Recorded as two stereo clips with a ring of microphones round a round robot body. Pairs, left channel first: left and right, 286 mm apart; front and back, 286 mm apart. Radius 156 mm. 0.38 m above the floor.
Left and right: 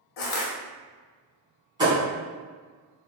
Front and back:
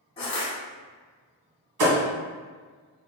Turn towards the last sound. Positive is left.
turn(degrees=-165)